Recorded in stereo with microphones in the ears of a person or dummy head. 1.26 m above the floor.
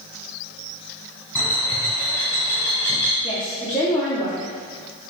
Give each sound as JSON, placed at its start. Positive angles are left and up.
{"t": 1.4, "sound": "a bird", "side_deg": 10, "distance_m": 1.5}
{"t": 3.2, "sound": "a woman speaking", "side_deg": 20, "distance_m": 0.8}